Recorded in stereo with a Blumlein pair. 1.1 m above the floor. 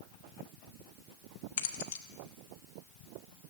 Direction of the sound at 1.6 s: 50° left.